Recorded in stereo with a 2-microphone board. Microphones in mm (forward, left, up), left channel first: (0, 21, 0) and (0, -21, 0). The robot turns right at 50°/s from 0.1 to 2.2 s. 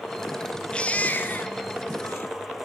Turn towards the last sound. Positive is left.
turn(degrees=100)